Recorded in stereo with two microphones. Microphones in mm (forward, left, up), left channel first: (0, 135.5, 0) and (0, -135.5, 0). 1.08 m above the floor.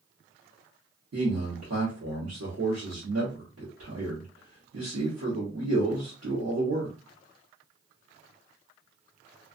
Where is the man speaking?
60° right (ahead or behind), 1.1 m.